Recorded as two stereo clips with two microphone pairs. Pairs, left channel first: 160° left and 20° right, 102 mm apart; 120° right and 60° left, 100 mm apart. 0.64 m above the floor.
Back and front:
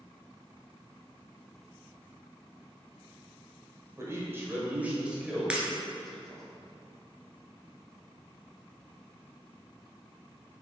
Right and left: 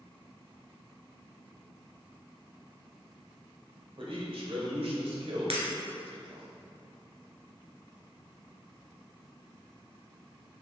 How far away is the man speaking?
About 2 m.